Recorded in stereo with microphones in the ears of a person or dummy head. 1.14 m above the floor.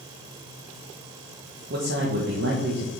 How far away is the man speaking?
About 1.2 m.